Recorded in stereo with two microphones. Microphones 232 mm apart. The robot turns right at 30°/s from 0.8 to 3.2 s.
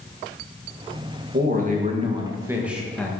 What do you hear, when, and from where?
1.3 s a man speaking: 45° right, 1.5 m; by 3.1 s 5° left, 1.5 m